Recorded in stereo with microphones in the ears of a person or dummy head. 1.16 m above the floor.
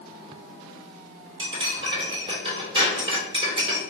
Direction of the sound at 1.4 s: 25° right (ahead or behind).